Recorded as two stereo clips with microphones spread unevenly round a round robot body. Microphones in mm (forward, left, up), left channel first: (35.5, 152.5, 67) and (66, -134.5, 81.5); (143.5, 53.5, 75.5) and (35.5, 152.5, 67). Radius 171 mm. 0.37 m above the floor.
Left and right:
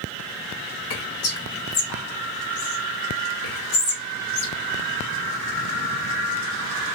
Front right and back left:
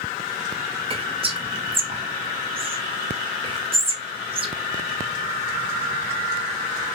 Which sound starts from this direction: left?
Whispering, at 0.9 s.